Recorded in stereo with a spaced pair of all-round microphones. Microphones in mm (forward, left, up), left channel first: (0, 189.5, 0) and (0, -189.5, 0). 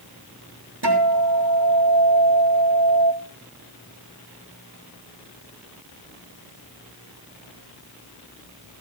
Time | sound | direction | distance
0.8 | a guitar | 90° right | 3.5 m